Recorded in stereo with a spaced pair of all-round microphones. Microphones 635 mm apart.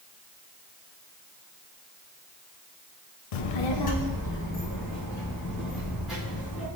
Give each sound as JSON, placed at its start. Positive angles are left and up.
{"t": 3.3, "sound": "a child speaking", "side_deg": 75, "distance_m": 0.6}